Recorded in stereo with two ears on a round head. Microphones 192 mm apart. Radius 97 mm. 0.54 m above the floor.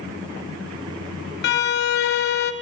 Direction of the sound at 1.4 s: 50° left (ahead or behind).